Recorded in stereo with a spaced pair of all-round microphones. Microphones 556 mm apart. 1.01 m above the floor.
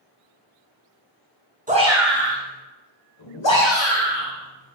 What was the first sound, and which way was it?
A shout, 15° right (ahead or behind).